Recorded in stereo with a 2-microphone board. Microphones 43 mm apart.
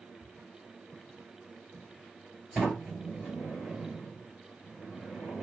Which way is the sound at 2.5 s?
40° right (ahead or behind).